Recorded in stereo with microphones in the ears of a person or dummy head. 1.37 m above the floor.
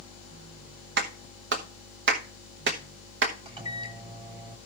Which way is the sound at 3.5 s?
25° right (ahead or behind).